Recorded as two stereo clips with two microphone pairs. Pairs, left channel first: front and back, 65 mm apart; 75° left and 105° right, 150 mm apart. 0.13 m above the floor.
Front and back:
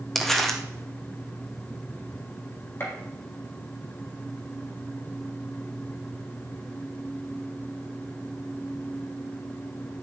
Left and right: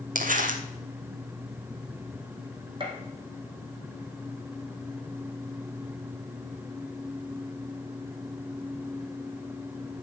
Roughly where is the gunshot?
Ahead right.